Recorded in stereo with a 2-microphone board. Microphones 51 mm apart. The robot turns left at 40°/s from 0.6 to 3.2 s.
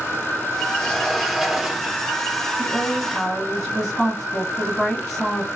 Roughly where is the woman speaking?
Centre.